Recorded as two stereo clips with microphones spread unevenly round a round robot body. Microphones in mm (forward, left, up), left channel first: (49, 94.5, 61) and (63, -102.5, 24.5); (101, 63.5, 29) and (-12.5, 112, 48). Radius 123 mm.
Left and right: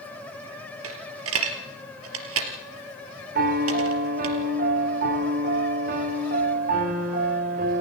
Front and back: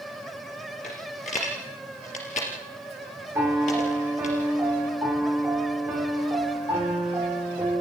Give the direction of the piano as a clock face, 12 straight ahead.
4 o'clock.